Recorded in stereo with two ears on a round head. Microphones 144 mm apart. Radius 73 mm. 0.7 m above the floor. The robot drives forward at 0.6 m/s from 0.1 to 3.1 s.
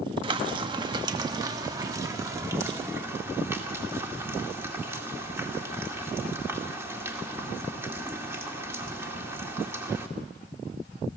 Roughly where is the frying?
Right.